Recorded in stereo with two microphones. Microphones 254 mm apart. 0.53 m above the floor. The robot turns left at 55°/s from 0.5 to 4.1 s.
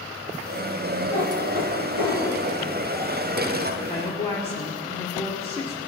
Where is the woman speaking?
30° left (ahead or behind), 1.6 m; by 5.8 s 20° left (ahead or behind), 1.6 m.